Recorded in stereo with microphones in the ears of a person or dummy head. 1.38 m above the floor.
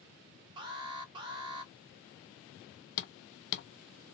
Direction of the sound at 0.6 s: 30° right (ahead or behind).